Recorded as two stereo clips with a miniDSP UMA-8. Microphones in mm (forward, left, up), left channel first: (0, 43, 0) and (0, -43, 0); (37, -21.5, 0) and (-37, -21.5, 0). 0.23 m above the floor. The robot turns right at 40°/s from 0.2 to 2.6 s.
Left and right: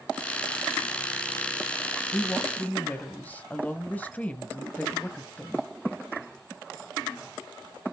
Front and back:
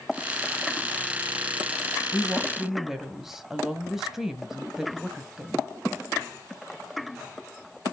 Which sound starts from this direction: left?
A woman speaking, at 2.1 s.